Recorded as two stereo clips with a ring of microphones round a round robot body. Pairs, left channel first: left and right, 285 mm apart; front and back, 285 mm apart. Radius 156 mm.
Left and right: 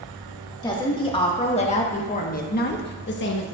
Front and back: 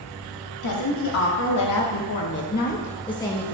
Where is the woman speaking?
15° left, 1.8 m; by 3.5 s 85° left, 1.0 m.